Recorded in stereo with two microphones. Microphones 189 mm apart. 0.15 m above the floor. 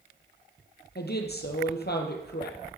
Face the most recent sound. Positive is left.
turn(degrees=60)  # may be behind; listen again after turning